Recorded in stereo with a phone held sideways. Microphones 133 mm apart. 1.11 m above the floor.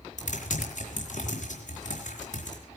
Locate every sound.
0.2 s typing on a keyboard: 65° left (ahead or behind), 4.5 m